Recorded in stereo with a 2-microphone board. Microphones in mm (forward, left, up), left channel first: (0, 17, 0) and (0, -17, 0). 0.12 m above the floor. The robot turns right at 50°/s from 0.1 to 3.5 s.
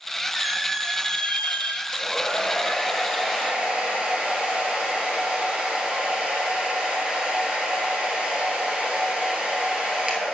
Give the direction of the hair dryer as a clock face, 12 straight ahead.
8 o'clock.